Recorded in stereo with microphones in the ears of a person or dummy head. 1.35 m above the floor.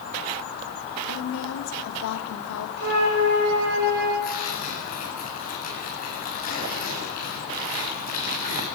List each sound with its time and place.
1.1 s a woman speaking: 75° left (ahead or behind), 2.5 m
2.8 s a flute: 55° right (ahead or behind), 7 m
4.2 s tearing paper: 45° left (ahead or behind), 9 m